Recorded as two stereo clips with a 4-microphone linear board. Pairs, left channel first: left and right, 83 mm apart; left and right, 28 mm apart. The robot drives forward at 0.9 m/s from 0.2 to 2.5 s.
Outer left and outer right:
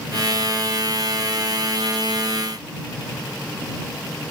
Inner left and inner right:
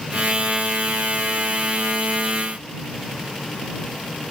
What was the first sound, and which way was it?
Only background noise.